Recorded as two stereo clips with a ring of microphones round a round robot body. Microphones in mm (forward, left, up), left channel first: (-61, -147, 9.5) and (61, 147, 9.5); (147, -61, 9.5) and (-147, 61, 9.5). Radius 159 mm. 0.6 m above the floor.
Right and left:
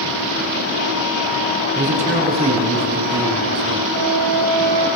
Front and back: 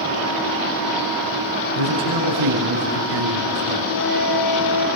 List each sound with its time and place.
1.8 s a man speaking: 135° left, 6 m; by 3.8 s 145° left, 5.5 m
3.9 s a flute: 10° left, 7 m